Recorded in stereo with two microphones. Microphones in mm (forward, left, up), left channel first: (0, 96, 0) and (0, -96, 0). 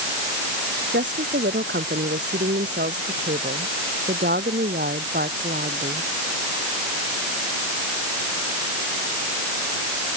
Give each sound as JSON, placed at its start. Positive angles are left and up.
{"t": 0.9, "sound": "a woman speaking", "side_deg": -70}